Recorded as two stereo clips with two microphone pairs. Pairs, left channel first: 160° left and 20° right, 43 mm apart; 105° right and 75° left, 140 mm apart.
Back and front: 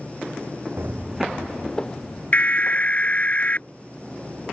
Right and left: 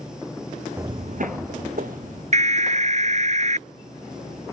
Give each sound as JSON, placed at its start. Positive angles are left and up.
{"t": 0.8, "sound": "footsteps", "azimuth_deg": 5}
{"t": 2.3, "sound": "an alarm", "azimuth_deg": 105}